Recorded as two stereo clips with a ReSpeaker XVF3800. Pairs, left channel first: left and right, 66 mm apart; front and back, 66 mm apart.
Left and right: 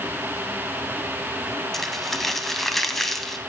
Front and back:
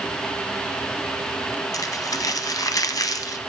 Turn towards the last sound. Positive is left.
turn(degrees=5)